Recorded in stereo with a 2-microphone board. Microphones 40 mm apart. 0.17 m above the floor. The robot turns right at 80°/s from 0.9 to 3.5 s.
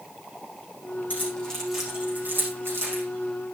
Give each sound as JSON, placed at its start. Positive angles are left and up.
{"t": 1.1, "sound": "keys jangling", "side_deg": 45, "distance_m": 7.0}